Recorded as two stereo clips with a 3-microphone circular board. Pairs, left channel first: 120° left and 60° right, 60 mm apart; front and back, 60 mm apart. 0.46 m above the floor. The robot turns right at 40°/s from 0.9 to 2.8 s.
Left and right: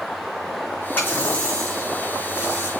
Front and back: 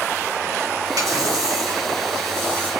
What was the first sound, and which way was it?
A running tap, 175° left.